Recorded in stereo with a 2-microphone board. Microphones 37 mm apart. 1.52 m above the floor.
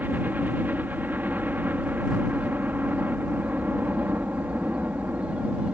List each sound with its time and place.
0.0 s a helicopter: 60° right (ahead or behind)